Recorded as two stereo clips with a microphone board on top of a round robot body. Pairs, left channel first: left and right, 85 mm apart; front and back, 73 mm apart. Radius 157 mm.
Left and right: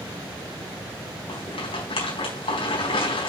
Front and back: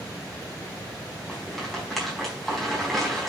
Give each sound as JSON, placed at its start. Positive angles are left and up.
{"t": 1.3, "sound": "a rattle", "azimuth_deg": 85, "distance_m": 4.5}